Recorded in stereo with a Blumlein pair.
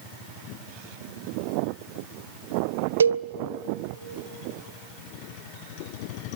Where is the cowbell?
70° right, 0.5 m.